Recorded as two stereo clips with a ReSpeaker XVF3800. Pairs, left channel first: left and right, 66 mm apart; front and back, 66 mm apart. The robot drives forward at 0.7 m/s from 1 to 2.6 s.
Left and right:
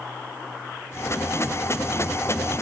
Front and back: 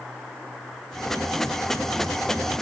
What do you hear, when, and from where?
Only background noise.